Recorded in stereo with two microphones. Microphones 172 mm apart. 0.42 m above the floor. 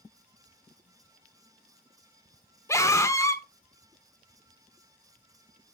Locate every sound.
2.7 s a scream: 15° left (ahead or behind), 1.1 m